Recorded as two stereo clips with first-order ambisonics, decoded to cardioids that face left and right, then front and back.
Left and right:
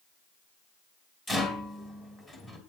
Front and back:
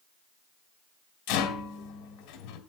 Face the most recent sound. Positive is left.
turn(degrees=15)